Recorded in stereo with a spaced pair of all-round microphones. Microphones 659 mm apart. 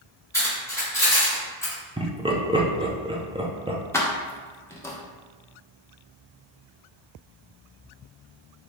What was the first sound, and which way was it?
Cutlery clinking, 5° left (ahead or behind).